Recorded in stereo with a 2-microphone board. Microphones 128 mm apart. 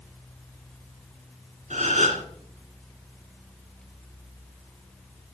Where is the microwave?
I don't hear a microwave.